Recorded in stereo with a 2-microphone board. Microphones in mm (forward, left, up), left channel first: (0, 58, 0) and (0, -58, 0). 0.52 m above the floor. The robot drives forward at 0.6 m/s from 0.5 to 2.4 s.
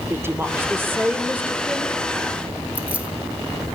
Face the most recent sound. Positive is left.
turn(degrees=-10)  # may be behind; listen again after turning